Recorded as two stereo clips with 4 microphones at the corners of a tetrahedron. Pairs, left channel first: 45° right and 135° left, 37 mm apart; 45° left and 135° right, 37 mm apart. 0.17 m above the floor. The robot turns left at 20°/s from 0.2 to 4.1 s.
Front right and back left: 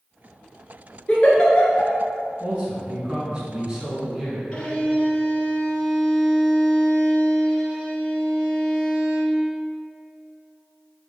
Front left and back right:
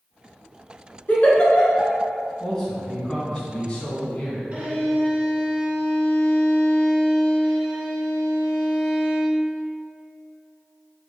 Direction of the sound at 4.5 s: 95° right.